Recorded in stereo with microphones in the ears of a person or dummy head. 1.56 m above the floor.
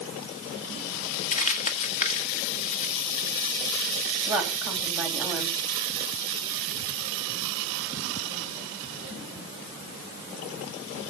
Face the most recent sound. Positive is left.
turn(degrees=0)  # may be behind; listen again after turning